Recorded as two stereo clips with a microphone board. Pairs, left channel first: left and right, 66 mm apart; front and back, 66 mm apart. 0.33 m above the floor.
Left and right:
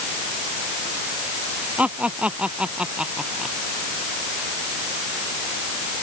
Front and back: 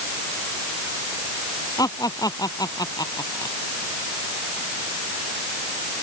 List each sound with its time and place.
1.8 s laughter: 20° right; by 3.5 s 10° right